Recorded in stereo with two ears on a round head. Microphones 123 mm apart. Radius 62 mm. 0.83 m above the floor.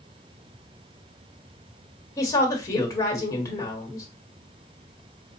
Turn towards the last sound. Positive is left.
turn(degrees=25)  # may be behind; listen again after turning